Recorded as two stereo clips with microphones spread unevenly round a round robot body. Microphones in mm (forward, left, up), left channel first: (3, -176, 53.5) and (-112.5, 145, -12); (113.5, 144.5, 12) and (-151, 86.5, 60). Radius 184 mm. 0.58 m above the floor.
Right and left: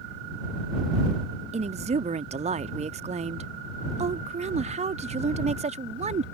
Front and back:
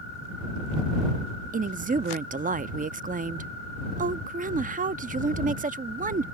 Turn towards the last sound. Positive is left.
turn(degrees=135)